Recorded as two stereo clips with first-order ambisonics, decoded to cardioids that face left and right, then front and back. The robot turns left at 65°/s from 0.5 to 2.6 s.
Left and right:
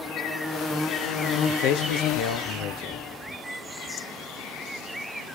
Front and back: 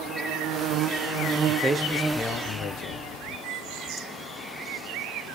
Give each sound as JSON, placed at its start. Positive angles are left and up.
{"t": 1.5, "sound": "a man speaking", "azimuth_deg": 125, "distance_m": 0.7}